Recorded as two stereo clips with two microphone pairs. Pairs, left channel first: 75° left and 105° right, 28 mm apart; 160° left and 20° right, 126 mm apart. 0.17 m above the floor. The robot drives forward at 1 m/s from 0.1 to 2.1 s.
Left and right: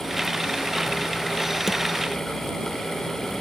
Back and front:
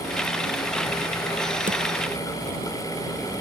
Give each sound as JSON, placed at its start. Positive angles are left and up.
{"t": 1.7, "sound": "a drawer", "azimuth_deg": -30}